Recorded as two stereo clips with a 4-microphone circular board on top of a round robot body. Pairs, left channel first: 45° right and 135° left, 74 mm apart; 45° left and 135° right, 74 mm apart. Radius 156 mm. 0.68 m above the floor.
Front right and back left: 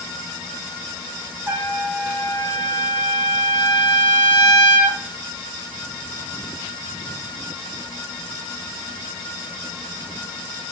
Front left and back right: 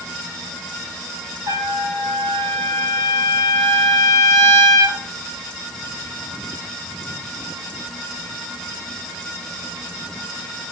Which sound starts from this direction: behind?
A trumpet, at 1.5 s.